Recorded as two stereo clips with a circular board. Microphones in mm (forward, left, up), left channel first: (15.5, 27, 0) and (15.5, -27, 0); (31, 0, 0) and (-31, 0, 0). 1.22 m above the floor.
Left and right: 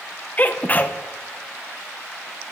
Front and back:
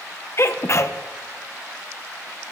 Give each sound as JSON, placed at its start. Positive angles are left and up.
{"t": 0.4, "sound": "a sneeze", "azimuth_deg": 35, "distance_m": 0.8}